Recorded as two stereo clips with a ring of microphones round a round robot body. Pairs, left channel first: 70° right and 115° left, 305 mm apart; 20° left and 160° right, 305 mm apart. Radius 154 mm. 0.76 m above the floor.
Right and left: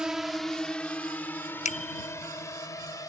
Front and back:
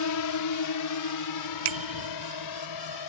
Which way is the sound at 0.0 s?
25° left.